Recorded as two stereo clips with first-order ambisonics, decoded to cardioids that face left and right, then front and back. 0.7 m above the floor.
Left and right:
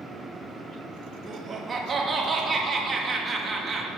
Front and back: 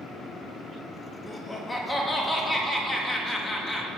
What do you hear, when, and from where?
1.3 s laughter: 60° right, 0.9 m